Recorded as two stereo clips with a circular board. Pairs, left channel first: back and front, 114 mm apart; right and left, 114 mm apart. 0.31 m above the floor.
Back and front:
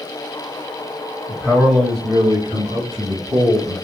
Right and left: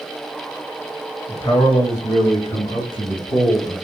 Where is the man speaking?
85° right, 1.5 m; by 3.8 s 35° right, 3.5 m.